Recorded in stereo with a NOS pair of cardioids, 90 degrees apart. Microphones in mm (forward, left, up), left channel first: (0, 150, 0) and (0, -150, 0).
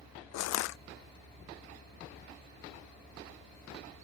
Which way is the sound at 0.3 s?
65° left.